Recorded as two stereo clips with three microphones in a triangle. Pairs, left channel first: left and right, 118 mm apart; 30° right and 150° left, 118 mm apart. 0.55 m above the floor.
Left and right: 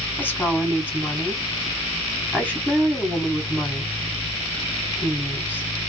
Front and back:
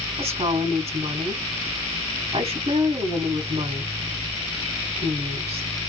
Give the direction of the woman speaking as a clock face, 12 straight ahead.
7 o'clock.